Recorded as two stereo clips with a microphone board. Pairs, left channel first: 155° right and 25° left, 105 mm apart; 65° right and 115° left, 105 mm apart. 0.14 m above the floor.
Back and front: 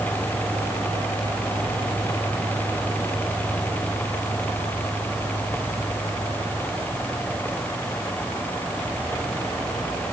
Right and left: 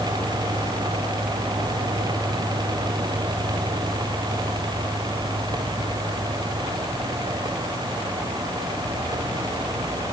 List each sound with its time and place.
Only background noise.